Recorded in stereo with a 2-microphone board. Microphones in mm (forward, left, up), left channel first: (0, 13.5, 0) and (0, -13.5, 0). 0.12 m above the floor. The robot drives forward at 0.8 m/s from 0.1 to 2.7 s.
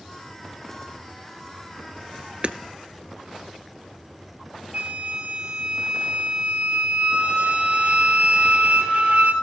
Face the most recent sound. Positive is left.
turn(degrees=-55)  # may be behind; listen again after turning